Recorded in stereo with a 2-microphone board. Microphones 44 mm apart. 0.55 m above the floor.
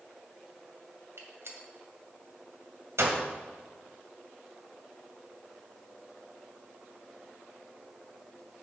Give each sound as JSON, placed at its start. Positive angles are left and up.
{"t": 1.2, "sound": "a gunshot", "side_deg": -80, "distance_m": 2.0}